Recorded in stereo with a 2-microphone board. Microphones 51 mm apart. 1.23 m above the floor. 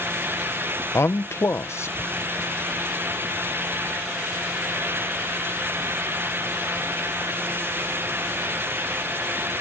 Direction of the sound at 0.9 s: 60° left (ahead or behind).